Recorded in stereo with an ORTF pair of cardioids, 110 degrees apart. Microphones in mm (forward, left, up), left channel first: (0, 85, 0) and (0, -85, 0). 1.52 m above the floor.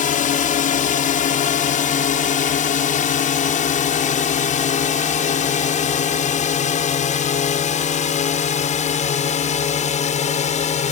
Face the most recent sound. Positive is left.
turn(degrees=45)